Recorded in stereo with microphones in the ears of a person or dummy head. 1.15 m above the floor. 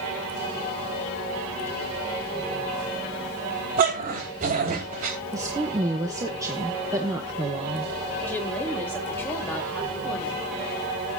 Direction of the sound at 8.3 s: 10° left (ahead or behind).